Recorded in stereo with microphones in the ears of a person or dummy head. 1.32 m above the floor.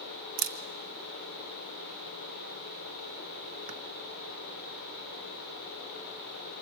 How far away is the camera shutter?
About 0.8 m.